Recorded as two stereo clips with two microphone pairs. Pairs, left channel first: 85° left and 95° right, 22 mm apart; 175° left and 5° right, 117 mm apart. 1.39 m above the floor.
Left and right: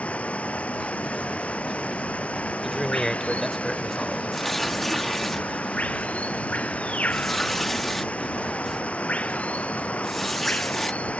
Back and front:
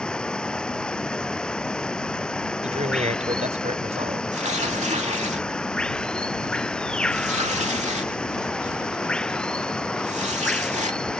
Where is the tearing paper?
5° left.